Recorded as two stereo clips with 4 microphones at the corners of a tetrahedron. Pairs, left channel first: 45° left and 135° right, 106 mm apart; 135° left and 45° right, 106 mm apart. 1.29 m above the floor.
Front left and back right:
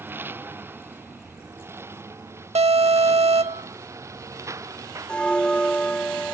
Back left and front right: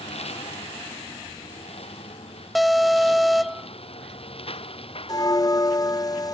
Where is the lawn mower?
155° left; by 6.3 s 165° left.